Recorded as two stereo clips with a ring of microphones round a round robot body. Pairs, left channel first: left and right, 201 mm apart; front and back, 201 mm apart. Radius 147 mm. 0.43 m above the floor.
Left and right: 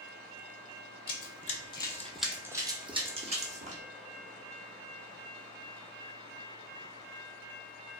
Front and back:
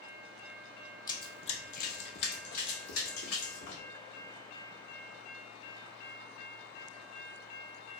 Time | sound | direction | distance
1.1 | running footsteps | 70° left | 0.7 m